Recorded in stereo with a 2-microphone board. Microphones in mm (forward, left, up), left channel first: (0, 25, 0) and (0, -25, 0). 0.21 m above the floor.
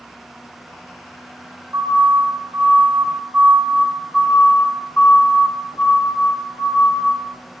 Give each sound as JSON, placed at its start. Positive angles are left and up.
{"t": 1.7, "sound": "a siren", "side_deg": -50, "distance_m": 4.0}